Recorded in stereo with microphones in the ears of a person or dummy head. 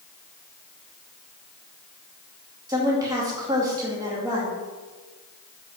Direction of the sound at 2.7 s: 20° right (ahead or behind).